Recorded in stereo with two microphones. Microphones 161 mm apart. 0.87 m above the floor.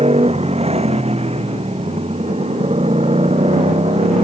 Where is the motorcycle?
40° right (ahead or behind).